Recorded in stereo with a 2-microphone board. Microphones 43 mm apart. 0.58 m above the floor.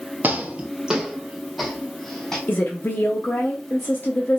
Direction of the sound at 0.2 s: 40° right (ahead or behind).